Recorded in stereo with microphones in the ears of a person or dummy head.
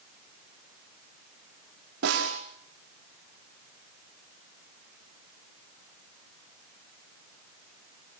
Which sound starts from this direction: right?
A snare drum, at 2.0 s.